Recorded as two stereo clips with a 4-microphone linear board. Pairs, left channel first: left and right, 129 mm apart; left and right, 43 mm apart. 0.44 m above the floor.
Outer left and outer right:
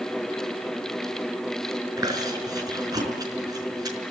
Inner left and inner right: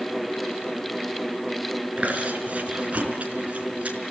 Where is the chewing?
30° right (ahead or behind), 5 m.